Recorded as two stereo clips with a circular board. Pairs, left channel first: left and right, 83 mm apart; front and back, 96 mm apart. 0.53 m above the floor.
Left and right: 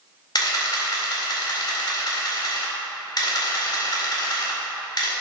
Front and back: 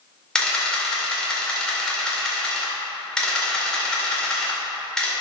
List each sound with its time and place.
0.3 s a camera shutter: 80° left, 2 m